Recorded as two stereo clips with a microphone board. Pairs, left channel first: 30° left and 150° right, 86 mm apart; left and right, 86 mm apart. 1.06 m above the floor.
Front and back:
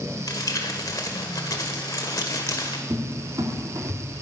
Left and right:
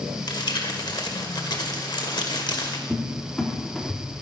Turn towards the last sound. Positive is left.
turn(degrees=175)